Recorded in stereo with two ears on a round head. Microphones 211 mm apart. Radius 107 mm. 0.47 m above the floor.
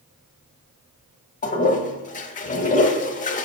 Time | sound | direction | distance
1.4 | a toilet flushing | 35° left (ahead or behind) | 0.7 m